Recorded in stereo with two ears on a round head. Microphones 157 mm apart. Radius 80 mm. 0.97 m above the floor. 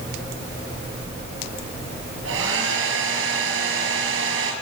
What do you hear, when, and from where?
2.2 s a hair dryer: 75° right (ahead or behind), 5 m